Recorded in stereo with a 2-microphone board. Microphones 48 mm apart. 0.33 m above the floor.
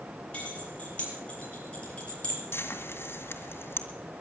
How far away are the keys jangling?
About 6.5 m.